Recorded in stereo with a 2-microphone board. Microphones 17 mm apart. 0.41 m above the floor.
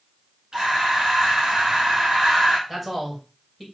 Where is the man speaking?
15° right (ahead or behind), 2 m.